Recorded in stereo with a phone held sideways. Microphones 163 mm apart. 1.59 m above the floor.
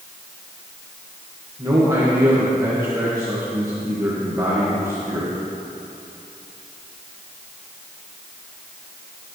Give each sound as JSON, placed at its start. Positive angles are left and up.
{"t": 1.6, "sound": "a man speaking", "side_deg": -20, "distance_m": 2.0}